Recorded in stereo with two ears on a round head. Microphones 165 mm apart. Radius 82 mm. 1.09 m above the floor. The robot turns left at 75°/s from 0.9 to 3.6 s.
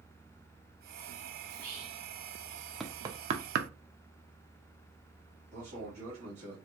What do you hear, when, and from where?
1.5 s whispering: 140° right, 0.8 m; by 2.0 s 175° left, 0.8 m
2.8 s knocking: centre (ahead or behind), 0.5 m; by 3.7 s 60° right (ahead or behind), 0.5 m
5.5 s a man speaking: 35° right (ahead or behind), 1.6 m